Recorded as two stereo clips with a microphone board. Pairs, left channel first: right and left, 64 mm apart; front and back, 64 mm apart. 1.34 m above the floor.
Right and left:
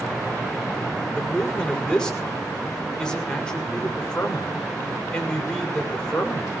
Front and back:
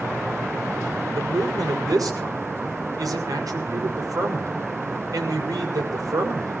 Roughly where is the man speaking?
Behind.